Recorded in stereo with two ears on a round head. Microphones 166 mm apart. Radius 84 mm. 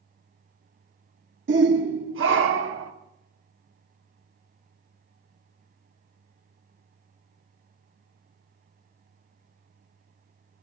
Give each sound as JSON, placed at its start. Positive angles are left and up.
{"t": 1.5, "sound": "a shout", "side_deg": -60, "distance_m": 1.0}